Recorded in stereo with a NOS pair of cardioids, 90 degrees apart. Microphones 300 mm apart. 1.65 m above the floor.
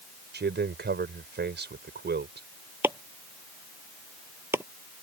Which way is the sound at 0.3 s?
35° right.